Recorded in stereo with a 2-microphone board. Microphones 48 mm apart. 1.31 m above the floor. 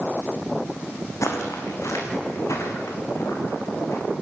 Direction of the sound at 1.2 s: 70° left (ahead or behind).